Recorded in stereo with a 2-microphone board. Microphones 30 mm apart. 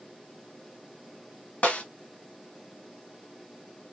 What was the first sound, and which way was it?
A snare drum, 55° left (ahead or behind).